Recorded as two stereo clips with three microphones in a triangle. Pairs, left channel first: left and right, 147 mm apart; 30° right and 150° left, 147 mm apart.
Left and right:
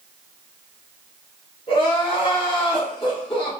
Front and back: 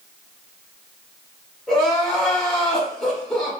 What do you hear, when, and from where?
1.7 s crying: 55° left, 1.0 m